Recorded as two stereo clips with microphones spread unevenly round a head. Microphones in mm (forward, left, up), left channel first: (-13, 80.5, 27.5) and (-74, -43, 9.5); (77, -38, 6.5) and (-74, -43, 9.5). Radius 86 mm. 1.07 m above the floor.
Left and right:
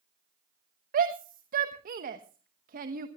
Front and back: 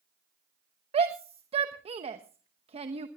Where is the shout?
125° right, 1.0 m.